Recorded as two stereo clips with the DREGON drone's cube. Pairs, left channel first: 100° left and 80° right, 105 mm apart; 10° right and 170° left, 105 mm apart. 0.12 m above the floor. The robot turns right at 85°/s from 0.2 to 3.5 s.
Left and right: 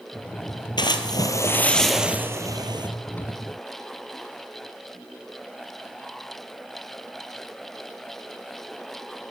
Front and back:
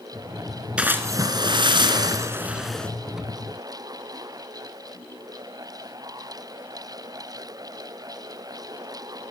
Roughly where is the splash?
Left.